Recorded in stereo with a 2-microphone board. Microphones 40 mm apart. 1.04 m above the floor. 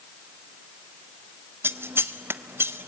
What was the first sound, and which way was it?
Scissors, 75° right (ahead or behind).